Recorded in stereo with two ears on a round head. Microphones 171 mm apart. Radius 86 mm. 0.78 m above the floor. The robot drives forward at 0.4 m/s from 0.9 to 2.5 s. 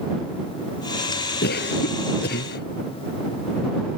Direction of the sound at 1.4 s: 55° left (ahead or behind).